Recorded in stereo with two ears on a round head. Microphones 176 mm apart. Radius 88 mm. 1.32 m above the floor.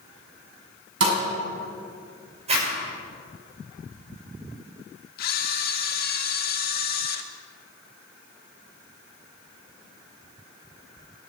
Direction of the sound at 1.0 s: 70° right (ahead or behind).